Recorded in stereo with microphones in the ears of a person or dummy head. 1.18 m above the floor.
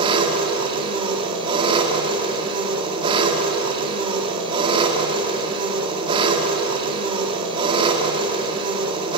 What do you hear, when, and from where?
0.0 s an engine running: 30° right (ahead or behind), 2.5 m